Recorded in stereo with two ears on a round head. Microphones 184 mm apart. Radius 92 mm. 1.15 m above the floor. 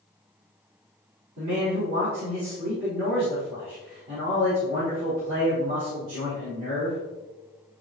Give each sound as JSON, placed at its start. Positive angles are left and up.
{"t": 1.4, "sound": "a man speaking", "side_deg": -70, "distance_m": 3.5}